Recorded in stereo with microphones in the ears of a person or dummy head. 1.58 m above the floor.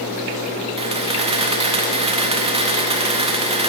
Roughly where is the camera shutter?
Right.